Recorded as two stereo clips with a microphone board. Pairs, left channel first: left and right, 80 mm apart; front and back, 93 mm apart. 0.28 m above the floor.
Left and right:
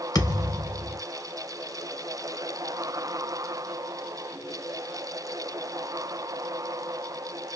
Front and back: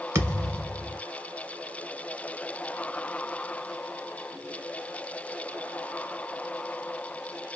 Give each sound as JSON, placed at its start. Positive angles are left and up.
{"t": 0.1, "sound": "a thud", "azimuth_deg": 125, "distance_m": 0.9}